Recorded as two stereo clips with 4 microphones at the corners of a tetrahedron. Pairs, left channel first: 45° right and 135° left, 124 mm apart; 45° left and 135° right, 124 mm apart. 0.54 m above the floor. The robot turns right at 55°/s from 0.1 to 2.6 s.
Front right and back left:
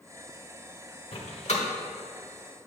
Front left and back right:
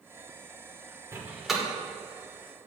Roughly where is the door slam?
Right.